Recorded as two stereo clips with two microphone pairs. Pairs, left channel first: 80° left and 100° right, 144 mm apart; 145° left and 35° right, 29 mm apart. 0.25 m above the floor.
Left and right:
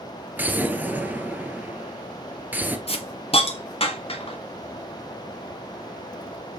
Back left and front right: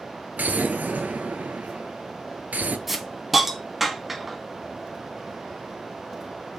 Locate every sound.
0.4 s an explosion: 20° right, 1.0 m
2.9 s a hiss: 45° left, 1.2 m